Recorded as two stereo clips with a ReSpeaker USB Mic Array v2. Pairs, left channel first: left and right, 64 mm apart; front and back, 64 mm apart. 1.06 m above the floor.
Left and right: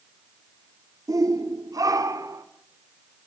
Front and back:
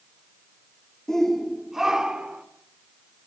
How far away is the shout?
About 2 m.